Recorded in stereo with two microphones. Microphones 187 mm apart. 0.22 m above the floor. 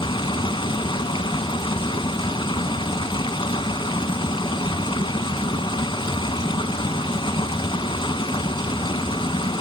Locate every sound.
0.0 s running water: 25° left (ahead or behind), 0.7 m